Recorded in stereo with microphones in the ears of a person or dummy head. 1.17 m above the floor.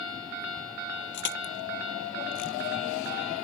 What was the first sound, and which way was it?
Crushing, 65° left (ahead or behind).